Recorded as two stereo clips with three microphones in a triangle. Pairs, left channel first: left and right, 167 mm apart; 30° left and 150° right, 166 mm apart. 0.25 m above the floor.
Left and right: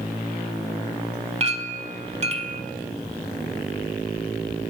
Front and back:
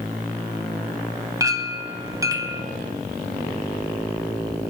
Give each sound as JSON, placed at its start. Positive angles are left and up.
{"t": 1.4, "sound": "a clink", "azimuth_deg": -90, "distance_m": 1.0}